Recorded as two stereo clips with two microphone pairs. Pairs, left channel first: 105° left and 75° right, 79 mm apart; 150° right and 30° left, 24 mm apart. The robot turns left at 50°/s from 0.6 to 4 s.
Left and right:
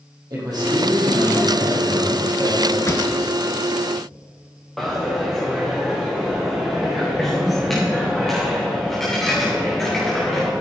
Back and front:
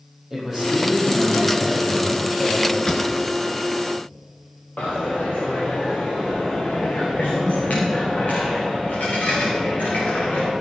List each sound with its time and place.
0.3 s a man speaking: 40° right, 4.5 m; by 2.8 s 150° right, 4.5 m
2.9 s a pop: 150° left, 1.1 m; by 3.1 s 140° left, 1.1 m
4.8 s a dropped coin: 170° right, 3.5 m